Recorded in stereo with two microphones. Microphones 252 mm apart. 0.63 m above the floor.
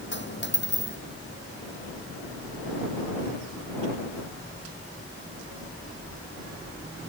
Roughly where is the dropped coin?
Left.